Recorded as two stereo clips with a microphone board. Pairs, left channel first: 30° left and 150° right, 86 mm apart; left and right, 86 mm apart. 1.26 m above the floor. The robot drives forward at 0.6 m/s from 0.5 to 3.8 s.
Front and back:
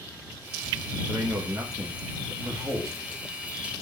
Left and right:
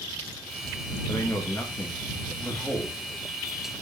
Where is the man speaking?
155° left, 1.6 m; by 3.1 s 165° left, 2.5 m.